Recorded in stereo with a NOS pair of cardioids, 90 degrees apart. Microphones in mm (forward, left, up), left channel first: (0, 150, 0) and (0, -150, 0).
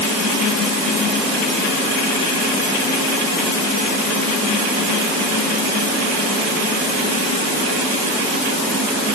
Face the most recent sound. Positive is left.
No sound to turn to.